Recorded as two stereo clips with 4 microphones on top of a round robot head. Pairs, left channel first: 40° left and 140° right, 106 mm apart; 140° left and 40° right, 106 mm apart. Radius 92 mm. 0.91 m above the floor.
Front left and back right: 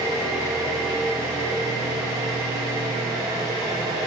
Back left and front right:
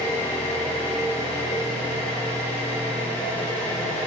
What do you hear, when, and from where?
0.0 s an engine running: 160° left, 3 m